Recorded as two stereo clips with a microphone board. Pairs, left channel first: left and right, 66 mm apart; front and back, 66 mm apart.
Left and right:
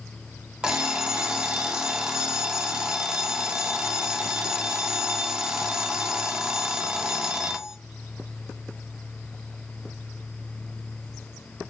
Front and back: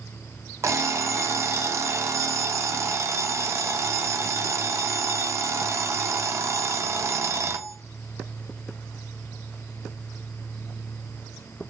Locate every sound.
0.6 s an alarm clock: 165° right, 0.6 m